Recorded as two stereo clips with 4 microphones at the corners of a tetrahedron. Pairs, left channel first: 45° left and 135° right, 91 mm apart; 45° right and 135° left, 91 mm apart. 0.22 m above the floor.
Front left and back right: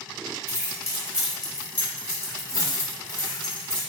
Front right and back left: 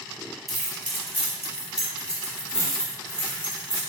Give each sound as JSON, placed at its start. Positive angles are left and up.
{"t": 0.5, "sound": "keys jangling", "azimuth_deg": -135, "distance_m": 0.8}